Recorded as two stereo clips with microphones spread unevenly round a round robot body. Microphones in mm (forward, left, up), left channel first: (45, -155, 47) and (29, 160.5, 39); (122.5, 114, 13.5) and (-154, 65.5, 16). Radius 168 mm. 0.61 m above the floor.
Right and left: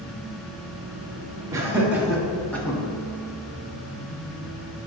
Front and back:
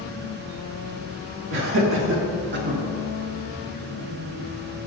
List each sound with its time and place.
1.5 s laughter: 170° left, 1.6 m; by 2.8 s 160° right, 1.2 m